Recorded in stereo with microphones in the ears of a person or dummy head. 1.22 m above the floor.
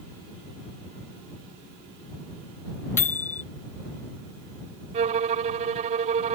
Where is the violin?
40° right (ahead or behind).